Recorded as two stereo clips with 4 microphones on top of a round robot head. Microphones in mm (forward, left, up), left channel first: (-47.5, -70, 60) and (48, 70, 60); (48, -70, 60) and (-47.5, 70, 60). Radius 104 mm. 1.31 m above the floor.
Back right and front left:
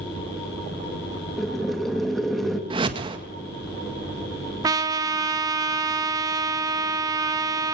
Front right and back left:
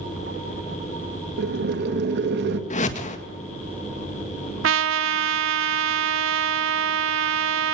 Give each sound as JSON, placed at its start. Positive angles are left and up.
{"t": 1.4, "sound": "boiling", "azimuth_deg": 145, "distance_m": 2.0}
{"t": 2.7, "sound": "a whoosh", "azimuth_deg": -5, "distance_m": 1.8}
{"t": 4.6, "sound": "a trumpet", "azimuth_deg": 125, "distance_m": 1.0}